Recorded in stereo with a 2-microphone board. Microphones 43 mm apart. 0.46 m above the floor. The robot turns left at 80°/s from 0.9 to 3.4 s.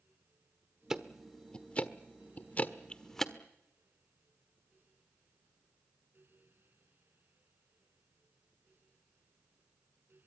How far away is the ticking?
About 1.2 m.